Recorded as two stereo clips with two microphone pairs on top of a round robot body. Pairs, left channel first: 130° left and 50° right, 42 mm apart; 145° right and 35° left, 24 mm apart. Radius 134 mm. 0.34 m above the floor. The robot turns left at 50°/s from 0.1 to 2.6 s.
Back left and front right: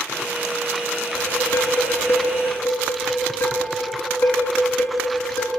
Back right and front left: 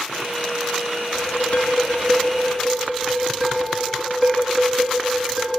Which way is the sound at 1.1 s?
160° right.